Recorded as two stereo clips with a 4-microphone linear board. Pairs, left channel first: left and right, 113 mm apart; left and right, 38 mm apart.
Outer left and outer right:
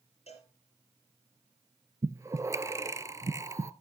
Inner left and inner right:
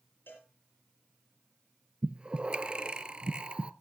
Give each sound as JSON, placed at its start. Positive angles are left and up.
{"t": 0.3, "sound": "a cowbell", "side_deg": 70, "distance_m": 6.0}
{"t": 2.0, "sound": "breathing", "side_deg": -25, "distance_m": 0.5}